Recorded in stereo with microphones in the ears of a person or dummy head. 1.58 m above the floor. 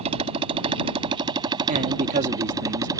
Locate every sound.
0.0 s a motorcycle: 45° right (ahead or behind); by 3.0 s 30° right (ahead or behind)
1.7 s a man speaking: 50° right (ahead or behind)